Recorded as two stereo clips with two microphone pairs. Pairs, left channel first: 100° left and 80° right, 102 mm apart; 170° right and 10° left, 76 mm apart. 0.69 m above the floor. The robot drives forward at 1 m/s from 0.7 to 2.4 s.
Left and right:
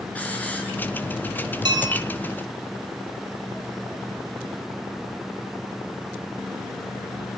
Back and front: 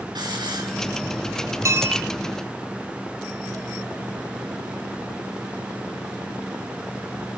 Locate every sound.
0.1 s a hiss: 25° left, 6.5 m
1.6 s a bell: 40° right, 1.8 m; by 2.0 s 50° right, 1.5 m